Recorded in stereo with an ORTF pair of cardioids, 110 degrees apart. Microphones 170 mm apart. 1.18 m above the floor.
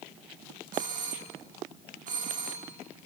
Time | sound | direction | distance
0.7 | a doorbell | 50° right | 2.5 m